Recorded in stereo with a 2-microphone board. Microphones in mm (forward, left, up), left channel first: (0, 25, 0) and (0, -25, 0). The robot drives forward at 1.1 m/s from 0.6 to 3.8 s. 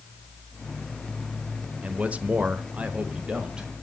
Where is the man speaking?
25° right (ahead or behind), 1.1 m; by 3.7 s 15° right (ahead or behind), 1.8 m.